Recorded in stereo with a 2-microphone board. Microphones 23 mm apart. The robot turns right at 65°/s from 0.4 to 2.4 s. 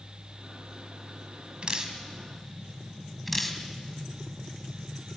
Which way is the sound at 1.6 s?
45° right (ahead or behind).